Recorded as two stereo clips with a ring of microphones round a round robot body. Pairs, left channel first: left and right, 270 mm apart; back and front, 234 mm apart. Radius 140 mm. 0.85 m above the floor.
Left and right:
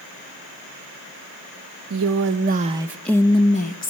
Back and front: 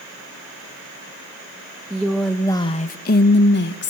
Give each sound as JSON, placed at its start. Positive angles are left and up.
{"t": 1.9, "sound": "a woman speaking", "azimuth_deg": -80, "distance_m": 1.1}